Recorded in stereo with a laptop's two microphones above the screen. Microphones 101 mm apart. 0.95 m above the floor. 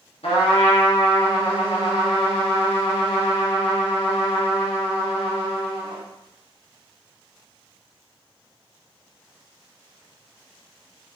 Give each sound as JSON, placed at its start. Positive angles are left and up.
{"t": 0.2, "sound": "a trumpet", "side_deg": 75, "distance_m": 0.8}